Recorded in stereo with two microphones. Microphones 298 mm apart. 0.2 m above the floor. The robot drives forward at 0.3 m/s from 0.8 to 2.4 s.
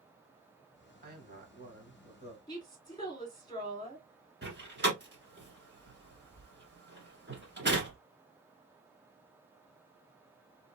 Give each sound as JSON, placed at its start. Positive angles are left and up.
{"t": 1.0, "sound": "a man speaking", "side_deg": -30, "distance_m": 1.2}
{"t": 2.5, "sound": "a woman speaking", "side_deg": 15, "distance_m": 2.0}
{"t": 4.4, "sound": "a door slam", "side_deg": -35, "distance_m": 1.5}